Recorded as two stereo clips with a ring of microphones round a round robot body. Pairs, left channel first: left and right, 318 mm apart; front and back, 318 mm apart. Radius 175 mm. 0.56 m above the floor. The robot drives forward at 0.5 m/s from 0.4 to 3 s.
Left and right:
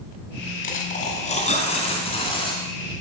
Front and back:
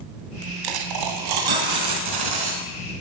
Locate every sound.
0.6 s a dropped coin: 155° left, 1.6 m; by 2.7 s 165° left, 2.5 m